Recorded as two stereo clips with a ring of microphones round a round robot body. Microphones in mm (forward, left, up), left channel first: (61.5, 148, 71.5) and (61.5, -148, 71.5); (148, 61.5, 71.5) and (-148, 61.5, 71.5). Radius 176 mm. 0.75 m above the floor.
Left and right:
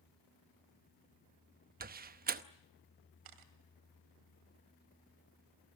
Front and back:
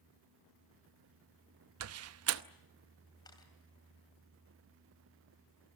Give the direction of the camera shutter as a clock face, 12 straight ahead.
3 o'clock.